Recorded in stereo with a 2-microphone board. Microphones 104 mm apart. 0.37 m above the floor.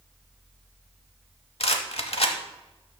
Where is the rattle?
75° left (ahead or behind), 0.8 m.